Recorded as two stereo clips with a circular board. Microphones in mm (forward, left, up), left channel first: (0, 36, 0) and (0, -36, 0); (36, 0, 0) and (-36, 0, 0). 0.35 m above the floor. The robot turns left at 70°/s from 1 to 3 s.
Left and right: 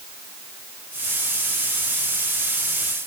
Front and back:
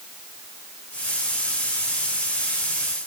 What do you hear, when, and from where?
Only background noise.